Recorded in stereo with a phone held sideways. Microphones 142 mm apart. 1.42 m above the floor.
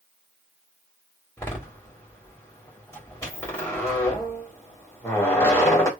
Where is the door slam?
20° left (ahead or behind), 2.5 m.